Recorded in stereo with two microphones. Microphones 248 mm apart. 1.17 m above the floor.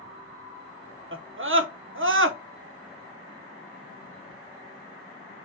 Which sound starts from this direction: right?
A scream, at 1.1 s.